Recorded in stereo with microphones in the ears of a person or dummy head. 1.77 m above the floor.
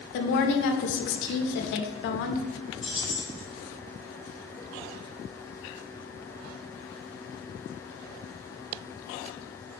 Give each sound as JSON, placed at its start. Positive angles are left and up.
{"t": 0.1, "sound": "a woman speaking", "side_deg": 60, "distance_m": 0.6}
{"t": 2.8, "sound": "keys jangling", "side_deg": 5, "distance_m": 0.7}